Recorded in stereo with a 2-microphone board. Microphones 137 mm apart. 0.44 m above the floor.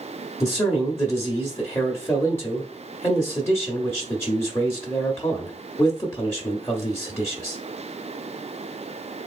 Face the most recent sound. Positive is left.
turn(degrees=15)  # may be behind; listen again after turning